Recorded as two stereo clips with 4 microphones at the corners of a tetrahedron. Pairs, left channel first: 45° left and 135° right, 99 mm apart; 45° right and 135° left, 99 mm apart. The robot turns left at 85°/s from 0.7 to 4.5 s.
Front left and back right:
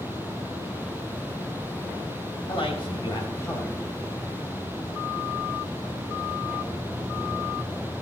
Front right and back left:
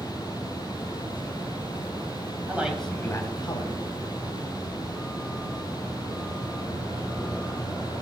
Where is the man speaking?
70° left, 2.5 m; by 3.8 s 40° right, 2.5 m.